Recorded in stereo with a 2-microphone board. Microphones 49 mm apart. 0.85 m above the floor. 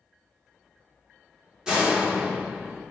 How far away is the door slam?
About 1.6 m.